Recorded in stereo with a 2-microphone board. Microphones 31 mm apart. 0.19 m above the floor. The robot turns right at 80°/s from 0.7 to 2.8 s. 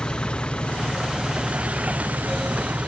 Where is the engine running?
140° left; by 2.9 s 50° right.